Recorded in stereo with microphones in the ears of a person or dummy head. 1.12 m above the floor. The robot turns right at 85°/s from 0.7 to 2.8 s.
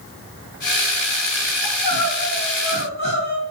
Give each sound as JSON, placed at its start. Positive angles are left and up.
{"t": 1.6, "sound": "crying", "azimuth_deg": 110, "distance_m": 1.6}